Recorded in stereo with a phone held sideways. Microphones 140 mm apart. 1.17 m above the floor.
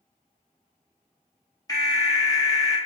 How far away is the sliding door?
No sliding door in this recording.